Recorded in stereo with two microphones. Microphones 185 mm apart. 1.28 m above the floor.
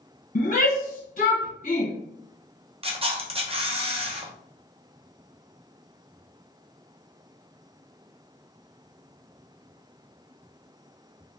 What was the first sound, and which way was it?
A shout, 50° left (ahead or behind).